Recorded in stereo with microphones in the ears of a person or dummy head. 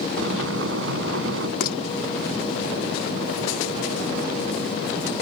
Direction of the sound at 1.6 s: 55° left (ahead or behind).